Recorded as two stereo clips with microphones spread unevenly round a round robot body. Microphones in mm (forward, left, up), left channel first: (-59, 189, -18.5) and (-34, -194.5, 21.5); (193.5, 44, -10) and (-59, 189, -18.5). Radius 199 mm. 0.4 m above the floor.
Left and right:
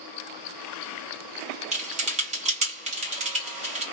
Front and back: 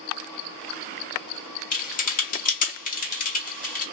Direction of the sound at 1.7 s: 20° right.